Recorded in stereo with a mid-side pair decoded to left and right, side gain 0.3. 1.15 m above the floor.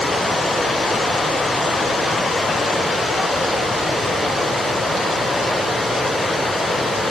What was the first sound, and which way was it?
Only background noise.